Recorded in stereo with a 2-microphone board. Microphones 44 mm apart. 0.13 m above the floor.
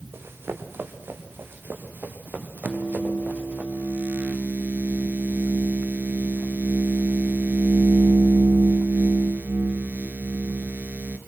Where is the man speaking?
No man speaking in this recording.